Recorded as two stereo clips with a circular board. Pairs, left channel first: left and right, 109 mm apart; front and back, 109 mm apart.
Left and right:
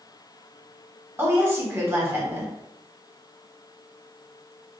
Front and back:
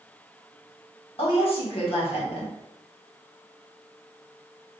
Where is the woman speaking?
25° right, 1.4 m.